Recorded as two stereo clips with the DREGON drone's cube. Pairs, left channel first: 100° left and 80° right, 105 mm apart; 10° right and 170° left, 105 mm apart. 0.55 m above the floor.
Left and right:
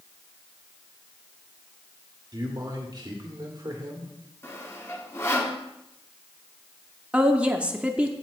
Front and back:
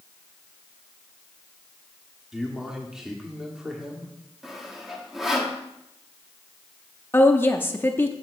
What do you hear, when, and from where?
2.3 s a man speaking: 105° right, 1.2 m
4.4 s sawing: 85° left, 1.2 m
7.1 s a woman speaking: 30° right, 0.6 m